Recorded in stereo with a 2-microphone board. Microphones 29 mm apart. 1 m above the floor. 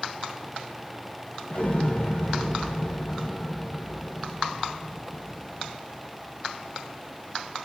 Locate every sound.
1.5 s an explosion: 45° left (ahead or behind), 1.0 m